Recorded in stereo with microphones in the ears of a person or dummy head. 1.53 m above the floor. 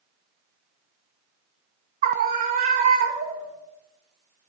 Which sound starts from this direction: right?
A scream, at 2.0 s.